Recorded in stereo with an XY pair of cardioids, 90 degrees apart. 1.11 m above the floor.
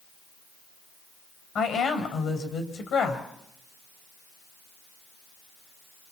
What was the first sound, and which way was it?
A woman speaking, 70° left.